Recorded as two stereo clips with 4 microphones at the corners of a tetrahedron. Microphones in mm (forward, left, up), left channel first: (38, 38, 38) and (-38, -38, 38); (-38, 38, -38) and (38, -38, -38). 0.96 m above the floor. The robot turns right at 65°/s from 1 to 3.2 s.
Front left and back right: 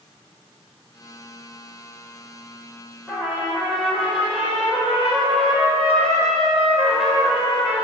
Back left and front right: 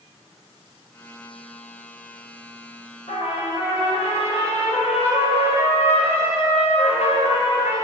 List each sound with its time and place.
3.1 s a trumpet: 135° left, 5 m; by 7.8 s 145° left, 5 m